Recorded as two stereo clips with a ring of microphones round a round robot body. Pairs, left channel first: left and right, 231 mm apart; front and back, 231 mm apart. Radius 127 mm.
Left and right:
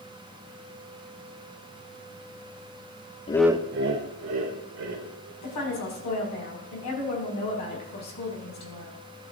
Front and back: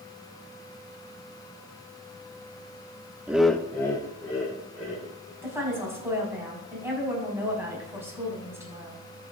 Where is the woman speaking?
100° left, 5 m.